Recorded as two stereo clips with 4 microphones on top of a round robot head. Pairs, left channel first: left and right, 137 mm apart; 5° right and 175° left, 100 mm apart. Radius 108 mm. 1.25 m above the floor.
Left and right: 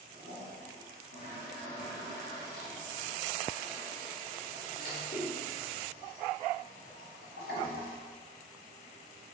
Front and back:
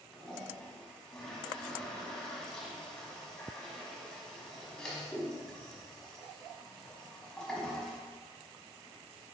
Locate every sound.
0.1 s a toilet flushing: 80° left, 1.2 m